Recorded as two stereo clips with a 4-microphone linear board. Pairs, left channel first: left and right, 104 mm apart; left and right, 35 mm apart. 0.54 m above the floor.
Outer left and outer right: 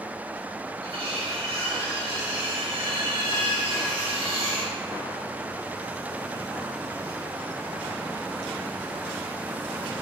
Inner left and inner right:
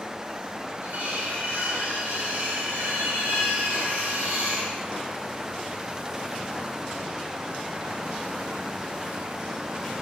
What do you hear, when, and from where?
0.8 s cutlery clinking: 70° right (ahead or behind), 1.9 m